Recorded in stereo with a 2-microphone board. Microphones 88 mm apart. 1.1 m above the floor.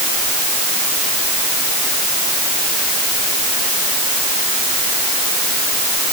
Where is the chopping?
No chopping in this recording.